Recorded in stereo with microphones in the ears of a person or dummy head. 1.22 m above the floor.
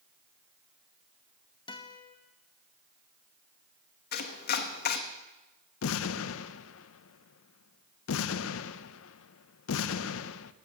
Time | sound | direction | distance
1.7 | a guitar | 30° left (ahead or behind) | 1.1 m
4.1 | chopping | 55° left (ahead or behind) | 1.1 m
5.8 | an explosion | 75° left (ahead or behind) | 0.6 m